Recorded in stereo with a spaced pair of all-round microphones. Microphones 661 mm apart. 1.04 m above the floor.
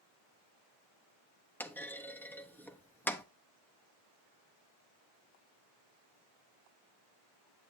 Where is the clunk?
5° left (ahead or behind), 0.6 m.